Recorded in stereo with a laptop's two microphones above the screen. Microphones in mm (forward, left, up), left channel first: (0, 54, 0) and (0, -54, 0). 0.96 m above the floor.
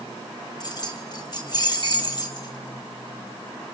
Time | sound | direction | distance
0.6 | keys jangling | 40° left (ahead or behind) | 2.5 m